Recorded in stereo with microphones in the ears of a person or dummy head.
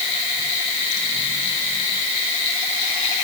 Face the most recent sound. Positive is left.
No sound to turn to.